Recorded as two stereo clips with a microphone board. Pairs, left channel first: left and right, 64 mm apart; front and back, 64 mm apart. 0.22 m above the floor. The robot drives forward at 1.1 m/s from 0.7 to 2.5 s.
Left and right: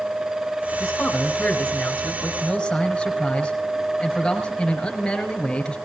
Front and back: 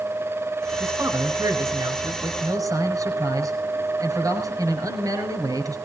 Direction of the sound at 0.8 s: 160° left.